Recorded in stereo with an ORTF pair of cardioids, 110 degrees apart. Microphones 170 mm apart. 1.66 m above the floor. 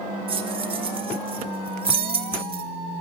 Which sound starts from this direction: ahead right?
Keys jangling, at 0.3 s.